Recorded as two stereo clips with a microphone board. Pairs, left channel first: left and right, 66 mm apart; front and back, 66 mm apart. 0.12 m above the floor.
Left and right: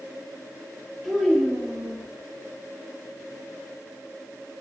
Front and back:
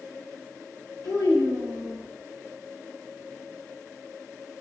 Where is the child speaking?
5° right, 1.8 m.